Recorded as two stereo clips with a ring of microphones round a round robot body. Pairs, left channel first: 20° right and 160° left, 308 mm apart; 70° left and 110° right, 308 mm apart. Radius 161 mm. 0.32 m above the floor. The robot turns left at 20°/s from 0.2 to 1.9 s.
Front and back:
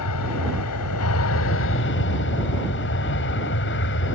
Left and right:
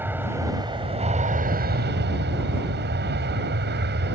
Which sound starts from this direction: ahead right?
An aircraft, at 0.0 s.